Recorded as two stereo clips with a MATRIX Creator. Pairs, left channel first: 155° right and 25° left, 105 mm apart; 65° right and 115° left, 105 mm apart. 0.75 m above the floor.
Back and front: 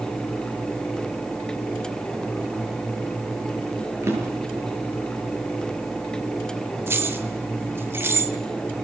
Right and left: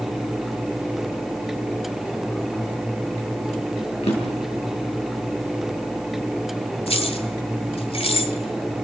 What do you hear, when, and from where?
4.0 s a drawer: 45° right, 7 m
6.9 s keys jangling: 45° right, 2.0 m